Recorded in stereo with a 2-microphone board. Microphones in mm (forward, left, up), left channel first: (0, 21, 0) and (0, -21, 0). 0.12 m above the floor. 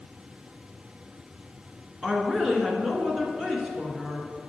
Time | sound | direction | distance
2.0 | a woman speaking | 15° right (ahead or behind) | 1.5 m